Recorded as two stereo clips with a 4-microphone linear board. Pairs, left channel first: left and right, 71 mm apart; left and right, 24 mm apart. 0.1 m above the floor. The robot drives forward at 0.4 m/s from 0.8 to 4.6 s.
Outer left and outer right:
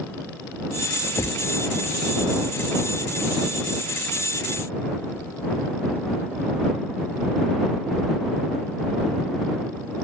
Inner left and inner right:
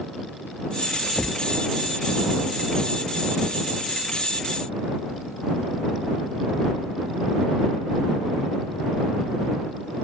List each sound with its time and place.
1.2 s a thud: 55° left (ahead or behind); by 1.4 s 50° left (ahead or behind)